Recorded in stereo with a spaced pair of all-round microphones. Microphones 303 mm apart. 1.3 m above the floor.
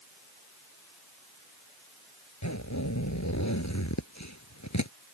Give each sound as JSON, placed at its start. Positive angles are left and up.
{"t": 2.4, "sound": "a zipper", "side_deg": 60}